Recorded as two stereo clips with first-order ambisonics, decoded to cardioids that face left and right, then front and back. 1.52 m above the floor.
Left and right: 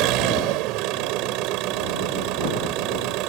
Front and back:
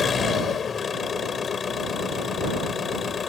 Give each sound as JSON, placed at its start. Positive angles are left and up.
{"t": 0.0, "sound": "an engine running", "azimuth_deg": -65}